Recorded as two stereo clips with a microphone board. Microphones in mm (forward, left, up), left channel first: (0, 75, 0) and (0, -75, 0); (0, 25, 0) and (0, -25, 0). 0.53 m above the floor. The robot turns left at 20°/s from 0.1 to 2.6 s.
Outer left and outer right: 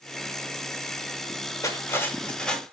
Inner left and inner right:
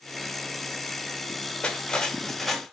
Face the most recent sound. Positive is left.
turn(degrees=5)  # may be behind; listen again after turning